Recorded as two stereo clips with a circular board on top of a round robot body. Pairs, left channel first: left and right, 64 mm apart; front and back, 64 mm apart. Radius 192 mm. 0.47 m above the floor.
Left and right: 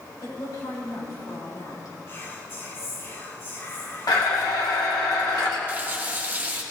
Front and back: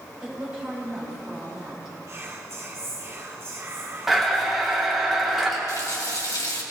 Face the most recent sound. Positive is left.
turn(degrees=-25)